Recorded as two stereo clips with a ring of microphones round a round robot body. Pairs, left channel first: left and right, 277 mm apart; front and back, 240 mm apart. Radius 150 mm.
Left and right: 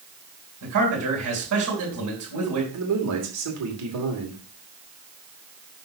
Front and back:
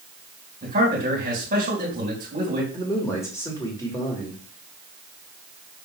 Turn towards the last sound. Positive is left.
turn(degrees=-80)